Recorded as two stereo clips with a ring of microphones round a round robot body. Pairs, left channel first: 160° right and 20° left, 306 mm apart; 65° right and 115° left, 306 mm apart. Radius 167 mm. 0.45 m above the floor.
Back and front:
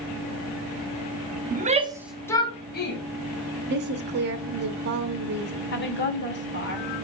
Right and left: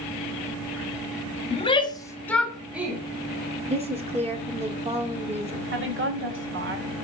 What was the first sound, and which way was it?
A shout, 10° right.